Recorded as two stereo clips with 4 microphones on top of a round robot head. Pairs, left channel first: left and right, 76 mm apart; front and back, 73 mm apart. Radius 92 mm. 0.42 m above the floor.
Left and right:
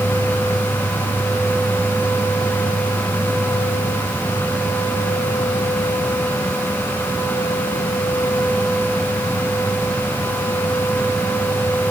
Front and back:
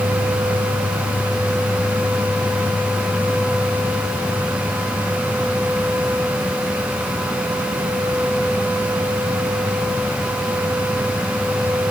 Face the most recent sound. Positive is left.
No sound to turn to.